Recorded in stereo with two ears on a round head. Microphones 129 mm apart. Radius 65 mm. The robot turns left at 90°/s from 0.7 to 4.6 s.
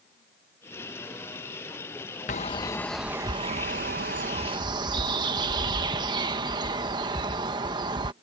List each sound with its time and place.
2.3 s a bird: 60° left; by 8.1 s 145° right